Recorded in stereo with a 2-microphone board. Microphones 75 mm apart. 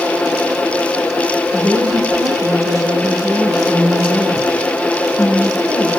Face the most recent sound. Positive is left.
turn(degrees=-45)  # may be behind; listen again after turning